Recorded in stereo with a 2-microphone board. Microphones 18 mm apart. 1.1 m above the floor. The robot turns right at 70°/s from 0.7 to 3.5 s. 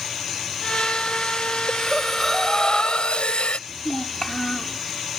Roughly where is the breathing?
Ahead right.